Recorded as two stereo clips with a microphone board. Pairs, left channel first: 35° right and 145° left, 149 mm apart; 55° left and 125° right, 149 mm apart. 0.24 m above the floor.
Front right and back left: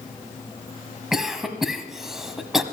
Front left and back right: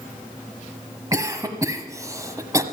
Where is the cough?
130° right, 1.1 m.